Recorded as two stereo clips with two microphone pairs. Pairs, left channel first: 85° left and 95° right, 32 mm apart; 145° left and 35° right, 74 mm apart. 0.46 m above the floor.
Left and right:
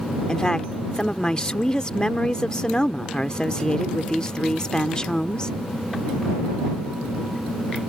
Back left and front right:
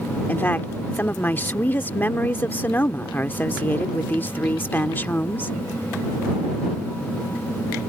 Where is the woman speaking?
110° left.